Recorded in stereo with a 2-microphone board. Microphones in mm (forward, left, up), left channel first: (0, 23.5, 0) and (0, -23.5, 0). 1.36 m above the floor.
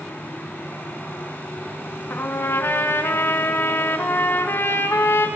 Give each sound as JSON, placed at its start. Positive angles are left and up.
{"t": 2.1, "sound": "a trumpet", "side_deg": 55, "distance_m": 2.0}